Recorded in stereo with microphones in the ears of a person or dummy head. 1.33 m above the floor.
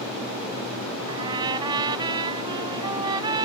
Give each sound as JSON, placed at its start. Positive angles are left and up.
{"t": 1.1, "sound": "a trumpet", "side_deg": -25}